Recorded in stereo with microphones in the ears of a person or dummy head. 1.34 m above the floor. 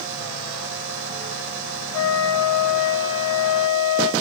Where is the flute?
10° left (ahead or behind), 7 m.